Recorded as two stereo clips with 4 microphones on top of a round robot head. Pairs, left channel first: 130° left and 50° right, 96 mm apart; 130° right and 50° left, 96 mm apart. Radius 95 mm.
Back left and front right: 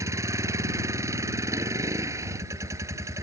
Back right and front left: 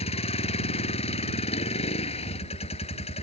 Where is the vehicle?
110° right.